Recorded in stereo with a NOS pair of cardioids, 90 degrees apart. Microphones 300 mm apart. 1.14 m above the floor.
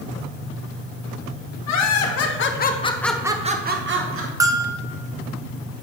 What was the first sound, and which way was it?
Laughter, 65° left.